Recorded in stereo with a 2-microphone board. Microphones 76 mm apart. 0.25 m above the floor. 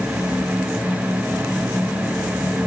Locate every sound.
Only background noise.